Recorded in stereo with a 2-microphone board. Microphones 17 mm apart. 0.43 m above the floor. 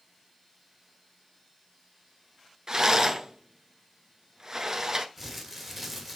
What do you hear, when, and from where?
2.7 s a rattle: 35° right (ahead or behind), 1.3 m
5.2 s crumpling: 15° right (ahead or behind), 1.9 m